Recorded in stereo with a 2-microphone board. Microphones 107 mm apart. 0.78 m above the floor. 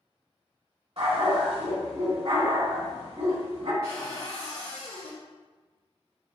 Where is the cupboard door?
70° left (ahead or behind), 2 m.